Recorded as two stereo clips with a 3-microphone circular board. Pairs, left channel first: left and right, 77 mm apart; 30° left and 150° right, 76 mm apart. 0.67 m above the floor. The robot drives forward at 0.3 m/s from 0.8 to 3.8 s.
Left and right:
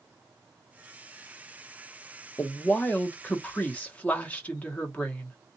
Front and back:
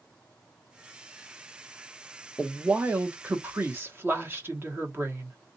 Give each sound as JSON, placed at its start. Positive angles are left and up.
{"t": 2.4, "sound": "a woman speaking", "azimuth_deg": 140, "distance_m": 0.8}